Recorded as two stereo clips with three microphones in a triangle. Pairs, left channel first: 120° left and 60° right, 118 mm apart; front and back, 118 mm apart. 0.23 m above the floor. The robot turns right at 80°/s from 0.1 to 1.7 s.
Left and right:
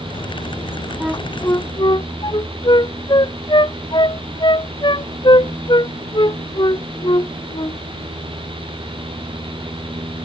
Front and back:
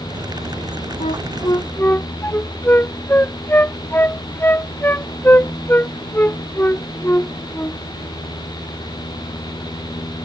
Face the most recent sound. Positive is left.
turn(degrees=75)